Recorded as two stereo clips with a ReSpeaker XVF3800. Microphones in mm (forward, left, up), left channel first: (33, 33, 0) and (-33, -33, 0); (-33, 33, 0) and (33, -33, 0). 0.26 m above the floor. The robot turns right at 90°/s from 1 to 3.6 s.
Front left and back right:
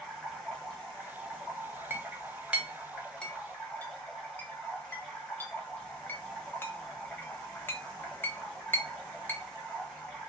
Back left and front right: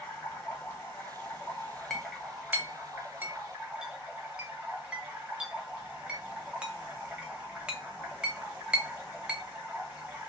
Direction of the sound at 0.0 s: 120° left.